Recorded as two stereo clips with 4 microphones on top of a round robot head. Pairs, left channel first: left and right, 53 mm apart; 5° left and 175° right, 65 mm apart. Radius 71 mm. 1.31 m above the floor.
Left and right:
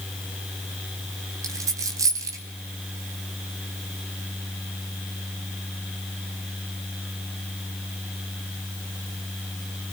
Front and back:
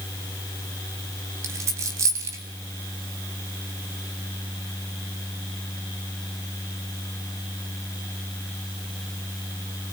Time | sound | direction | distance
1.4 | a dropped coin | 125° right | 2.5 m